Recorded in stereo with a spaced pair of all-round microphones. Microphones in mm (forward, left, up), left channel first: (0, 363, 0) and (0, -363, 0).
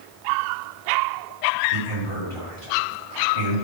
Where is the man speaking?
45° right (ahead or behind), 2.5 m.